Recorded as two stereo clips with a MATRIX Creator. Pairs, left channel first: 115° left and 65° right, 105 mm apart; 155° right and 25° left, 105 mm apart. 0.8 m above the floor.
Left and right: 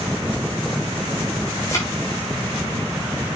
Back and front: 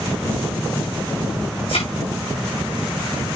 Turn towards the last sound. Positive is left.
turn(degrees=170)